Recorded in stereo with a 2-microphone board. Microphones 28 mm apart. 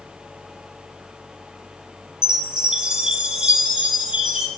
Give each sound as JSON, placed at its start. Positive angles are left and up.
{"t": 2.2, "sound": "a chime", "side_deg": -30, "distance_m": 0.9}